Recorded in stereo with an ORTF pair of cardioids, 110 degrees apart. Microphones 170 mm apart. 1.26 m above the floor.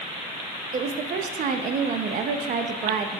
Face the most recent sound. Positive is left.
turn(degrees=-50)